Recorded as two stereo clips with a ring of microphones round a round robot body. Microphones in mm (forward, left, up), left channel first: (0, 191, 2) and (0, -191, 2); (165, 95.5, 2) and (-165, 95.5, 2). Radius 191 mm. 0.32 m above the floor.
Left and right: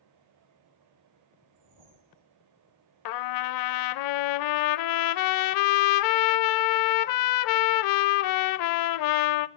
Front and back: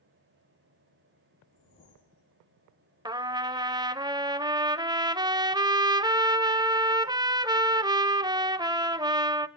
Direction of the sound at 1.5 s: 65° right.